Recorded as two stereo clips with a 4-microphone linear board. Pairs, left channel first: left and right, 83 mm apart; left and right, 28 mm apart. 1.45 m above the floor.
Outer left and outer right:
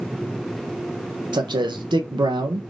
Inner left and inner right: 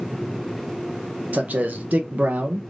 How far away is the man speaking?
About 0.9 m.